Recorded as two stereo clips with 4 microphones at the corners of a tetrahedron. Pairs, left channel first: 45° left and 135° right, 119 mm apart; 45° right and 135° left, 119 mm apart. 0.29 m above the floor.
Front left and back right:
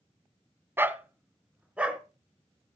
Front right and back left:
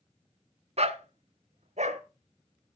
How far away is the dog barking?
About 1.1 m.